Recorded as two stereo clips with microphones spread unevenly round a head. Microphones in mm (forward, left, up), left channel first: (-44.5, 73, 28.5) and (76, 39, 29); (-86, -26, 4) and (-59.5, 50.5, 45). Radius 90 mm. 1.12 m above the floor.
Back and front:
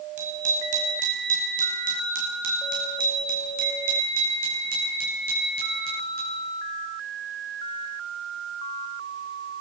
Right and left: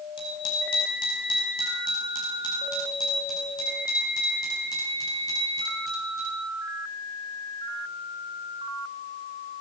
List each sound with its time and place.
0.2 s a bicycle bell: 65° right, 5 m; by 6.4 s 45° right, 10.5 m